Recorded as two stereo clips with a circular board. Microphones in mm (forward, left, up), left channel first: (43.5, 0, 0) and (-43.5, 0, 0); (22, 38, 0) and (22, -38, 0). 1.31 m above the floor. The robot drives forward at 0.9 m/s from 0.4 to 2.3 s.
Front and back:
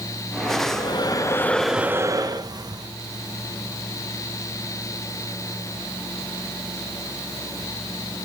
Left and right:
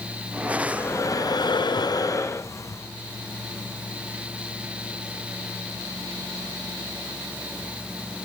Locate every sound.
0.6 s breathing: 30° left, 1.1 m; by 2.9 s 140° left, 0.8 m